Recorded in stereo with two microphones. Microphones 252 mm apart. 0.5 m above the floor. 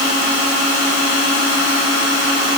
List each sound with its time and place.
Only background noise.